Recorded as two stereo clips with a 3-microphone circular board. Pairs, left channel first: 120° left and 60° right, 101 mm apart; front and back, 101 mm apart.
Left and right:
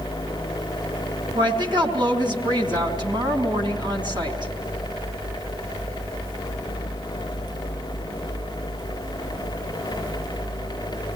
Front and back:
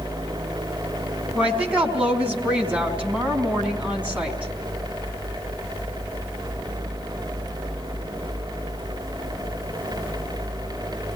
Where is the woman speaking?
105° right, 4 m.